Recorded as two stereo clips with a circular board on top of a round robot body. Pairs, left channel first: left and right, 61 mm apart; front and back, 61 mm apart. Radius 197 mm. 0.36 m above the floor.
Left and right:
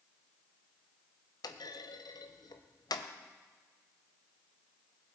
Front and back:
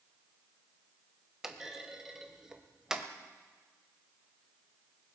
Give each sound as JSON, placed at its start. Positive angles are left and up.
{"t": 1.4, "sound": "a clunk", "azimuth_deg": 100, "distance_m": 0.8}